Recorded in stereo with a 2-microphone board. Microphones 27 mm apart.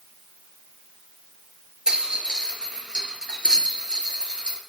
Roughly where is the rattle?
Right.